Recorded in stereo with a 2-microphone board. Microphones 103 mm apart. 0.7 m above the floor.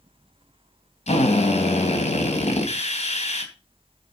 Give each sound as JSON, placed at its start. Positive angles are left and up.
{"t": 1.1, "sound": "a drill", "side_deg": 85, "distance_m": 3.0}